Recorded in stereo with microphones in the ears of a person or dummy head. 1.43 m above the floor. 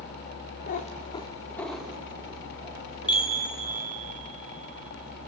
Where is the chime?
25° left (ahead or behind), 1.1 m.